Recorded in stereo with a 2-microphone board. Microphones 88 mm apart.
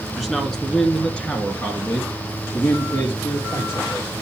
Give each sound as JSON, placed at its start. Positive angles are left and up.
{"t": 0.2, "sound": "a man speaking", "side_deg": 0, "distance_m": 1.5}